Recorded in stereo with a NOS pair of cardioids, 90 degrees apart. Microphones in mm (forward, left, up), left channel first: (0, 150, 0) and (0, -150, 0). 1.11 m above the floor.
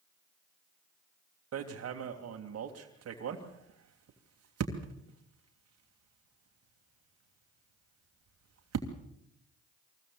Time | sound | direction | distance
1.5 | hammering | 55° right | 3 m